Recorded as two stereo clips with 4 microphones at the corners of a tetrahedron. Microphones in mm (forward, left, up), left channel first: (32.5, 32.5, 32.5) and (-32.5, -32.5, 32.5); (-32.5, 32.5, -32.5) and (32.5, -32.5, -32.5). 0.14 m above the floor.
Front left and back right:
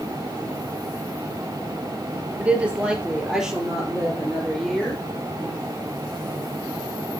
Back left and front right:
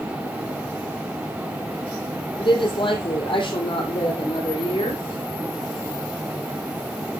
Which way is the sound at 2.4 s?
150° left.